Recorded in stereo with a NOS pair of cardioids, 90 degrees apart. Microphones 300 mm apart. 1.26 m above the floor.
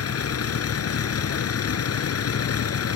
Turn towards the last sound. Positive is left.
turn(degrees=55)